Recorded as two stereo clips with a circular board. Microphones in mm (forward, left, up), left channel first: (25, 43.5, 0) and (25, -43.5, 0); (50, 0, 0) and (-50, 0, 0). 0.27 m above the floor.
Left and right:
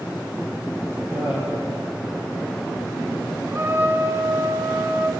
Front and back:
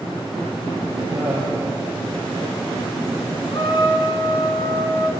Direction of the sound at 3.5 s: 35° right.